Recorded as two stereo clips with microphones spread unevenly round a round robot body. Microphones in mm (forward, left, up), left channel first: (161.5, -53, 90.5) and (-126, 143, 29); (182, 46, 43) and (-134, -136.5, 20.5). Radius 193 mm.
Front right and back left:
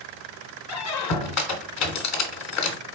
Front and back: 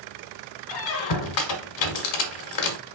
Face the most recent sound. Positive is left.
turn(degrees=15)